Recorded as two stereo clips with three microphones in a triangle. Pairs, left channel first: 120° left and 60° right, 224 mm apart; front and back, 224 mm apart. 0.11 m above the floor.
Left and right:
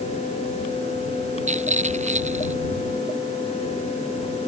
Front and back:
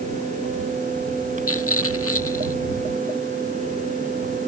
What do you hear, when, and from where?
1.5 s a rattle: straight ahead